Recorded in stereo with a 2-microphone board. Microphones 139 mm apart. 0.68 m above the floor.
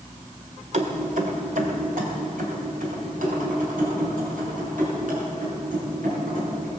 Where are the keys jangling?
55° right (ahead or behind), 1.7 m; by 6.7 s 75° right (ahead or behind), 8 m.